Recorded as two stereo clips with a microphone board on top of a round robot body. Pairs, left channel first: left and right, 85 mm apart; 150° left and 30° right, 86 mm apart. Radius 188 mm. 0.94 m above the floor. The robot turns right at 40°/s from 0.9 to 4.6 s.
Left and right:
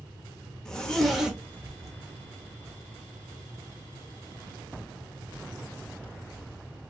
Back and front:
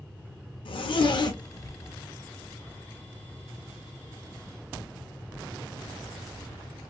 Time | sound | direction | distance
0.7 | a zipper | 170° left | 0.6 m